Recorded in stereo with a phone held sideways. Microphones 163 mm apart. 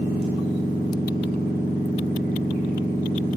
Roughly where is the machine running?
Left.